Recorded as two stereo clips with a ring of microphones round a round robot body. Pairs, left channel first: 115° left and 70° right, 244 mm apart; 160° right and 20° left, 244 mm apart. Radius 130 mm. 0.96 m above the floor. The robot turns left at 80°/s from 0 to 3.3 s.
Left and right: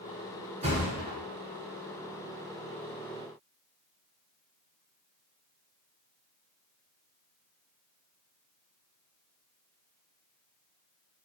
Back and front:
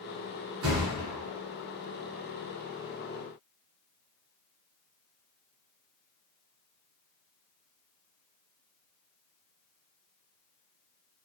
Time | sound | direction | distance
0.6 | a thud | 5° right | 1.7 m